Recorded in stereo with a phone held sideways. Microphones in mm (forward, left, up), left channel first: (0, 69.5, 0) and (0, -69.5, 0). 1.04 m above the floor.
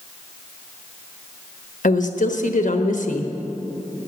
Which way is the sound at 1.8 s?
80° left.